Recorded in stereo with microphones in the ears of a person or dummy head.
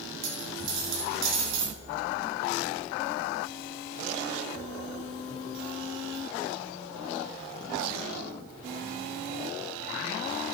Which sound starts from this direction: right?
A dropped coin, at 0.2 s.